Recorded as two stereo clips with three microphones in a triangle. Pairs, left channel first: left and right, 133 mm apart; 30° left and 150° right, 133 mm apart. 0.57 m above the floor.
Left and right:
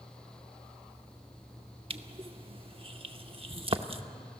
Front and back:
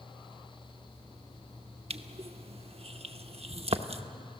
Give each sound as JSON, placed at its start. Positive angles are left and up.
{"t": 1.9, "sound": "crushing", "azimuth_deg": -125, "distance_m": 0.8}